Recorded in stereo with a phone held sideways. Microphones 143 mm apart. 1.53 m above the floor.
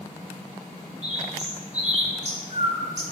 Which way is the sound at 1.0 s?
55° right (ahead or behind).